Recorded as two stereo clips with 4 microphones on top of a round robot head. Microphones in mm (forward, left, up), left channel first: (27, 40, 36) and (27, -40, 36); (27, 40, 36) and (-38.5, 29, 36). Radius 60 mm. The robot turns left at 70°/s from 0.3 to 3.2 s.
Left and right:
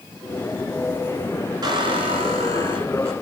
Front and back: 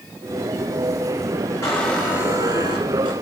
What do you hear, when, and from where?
1.6 s a squeak: 55° right, 2.5 m; by 3.1 s 160° right, 2.5 m